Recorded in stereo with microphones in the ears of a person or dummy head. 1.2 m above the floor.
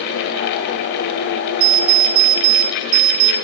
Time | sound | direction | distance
1.6 | an alarm clock | 50° right (ahead or behind) | 0.8 m